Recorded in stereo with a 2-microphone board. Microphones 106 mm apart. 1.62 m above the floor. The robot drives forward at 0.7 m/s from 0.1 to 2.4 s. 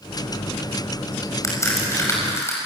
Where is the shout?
I don't hear a shout.